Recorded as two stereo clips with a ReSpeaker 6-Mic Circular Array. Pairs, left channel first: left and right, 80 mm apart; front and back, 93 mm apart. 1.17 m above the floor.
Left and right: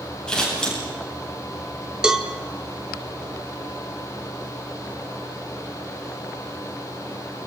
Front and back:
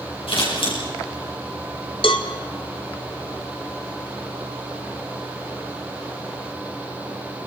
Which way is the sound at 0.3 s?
10° left.